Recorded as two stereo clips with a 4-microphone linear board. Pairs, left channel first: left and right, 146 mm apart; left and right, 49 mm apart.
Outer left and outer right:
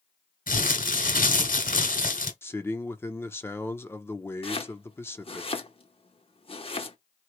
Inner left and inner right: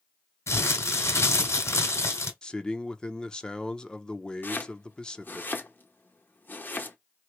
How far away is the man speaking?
About 0.7 m.